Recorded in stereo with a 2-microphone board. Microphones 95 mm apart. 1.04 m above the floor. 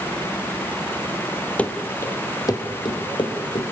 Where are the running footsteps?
15° left (ahead or behind), 1.3 m; by 3.7 s 60° left (ahead or behind), 3 m.